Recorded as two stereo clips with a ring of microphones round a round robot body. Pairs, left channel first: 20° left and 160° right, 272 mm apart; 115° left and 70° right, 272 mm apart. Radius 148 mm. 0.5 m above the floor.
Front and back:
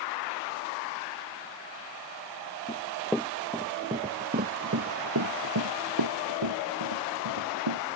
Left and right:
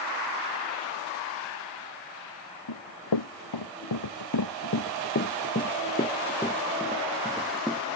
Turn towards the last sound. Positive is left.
turn(degrees=-155)